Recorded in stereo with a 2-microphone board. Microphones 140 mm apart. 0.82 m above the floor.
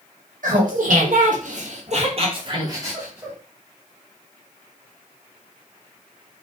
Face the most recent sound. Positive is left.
turn(degrees=-10)  # may be behind; listen again after turning